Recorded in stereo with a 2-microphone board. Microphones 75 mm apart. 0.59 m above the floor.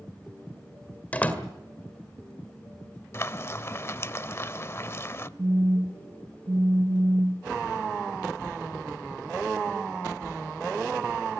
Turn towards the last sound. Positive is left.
turn(degrees=-45)  # may be behind; listen again after turning